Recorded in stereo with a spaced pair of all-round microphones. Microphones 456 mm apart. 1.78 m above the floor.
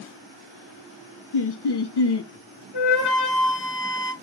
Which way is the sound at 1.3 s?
60° left (ahead or behind).